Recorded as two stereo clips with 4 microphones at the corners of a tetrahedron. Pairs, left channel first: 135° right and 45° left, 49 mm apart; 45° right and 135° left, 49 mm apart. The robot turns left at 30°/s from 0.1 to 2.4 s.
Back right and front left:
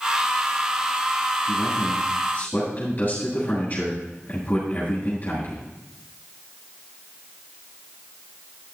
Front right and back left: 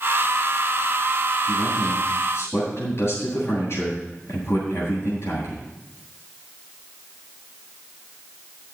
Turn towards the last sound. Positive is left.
turn(degrees=-80)